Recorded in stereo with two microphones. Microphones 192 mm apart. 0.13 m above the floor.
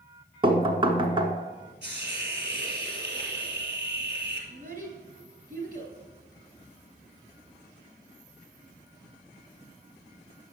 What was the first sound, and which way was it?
Knocking, 25° right (ahead or behind).